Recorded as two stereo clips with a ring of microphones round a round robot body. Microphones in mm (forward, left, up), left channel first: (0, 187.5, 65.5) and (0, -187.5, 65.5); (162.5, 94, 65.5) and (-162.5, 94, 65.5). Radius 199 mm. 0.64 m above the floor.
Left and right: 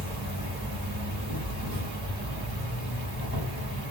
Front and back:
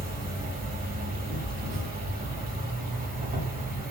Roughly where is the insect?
Behind right.